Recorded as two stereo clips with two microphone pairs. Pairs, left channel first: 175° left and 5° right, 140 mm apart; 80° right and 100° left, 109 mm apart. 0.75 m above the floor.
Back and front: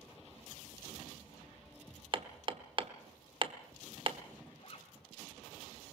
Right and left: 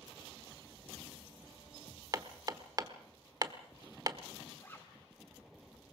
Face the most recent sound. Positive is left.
turn(degrees=-150)